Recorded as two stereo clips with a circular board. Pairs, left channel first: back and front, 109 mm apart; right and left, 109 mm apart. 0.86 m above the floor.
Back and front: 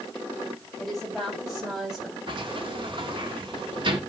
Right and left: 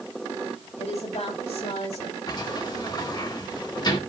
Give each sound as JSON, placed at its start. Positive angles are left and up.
{"t": 0.8, "sound": "a woman speaking", "azimuth_deg": -90, "distance_m": 7.0}
{"t": 2.3, "sound": "a sliding door", "azimuth_deg": -40, "distance_m": 1.7}